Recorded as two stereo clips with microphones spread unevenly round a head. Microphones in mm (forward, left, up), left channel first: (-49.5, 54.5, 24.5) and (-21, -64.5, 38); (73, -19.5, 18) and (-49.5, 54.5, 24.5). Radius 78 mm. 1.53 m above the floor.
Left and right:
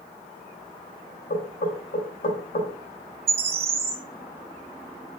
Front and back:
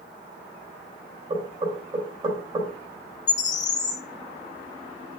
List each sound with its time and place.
1.3 s knocking: 90° left, 3.5 m
3.3 s a bird: 60° right, 0.7 m